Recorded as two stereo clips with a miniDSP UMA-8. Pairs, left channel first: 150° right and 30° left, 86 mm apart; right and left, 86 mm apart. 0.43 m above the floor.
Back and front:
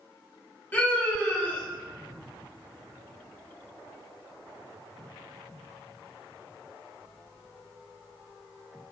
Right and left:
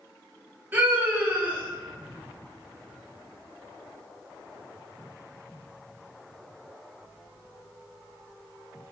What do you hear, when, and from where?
0.7 s a scream: 150° left, 1.9 m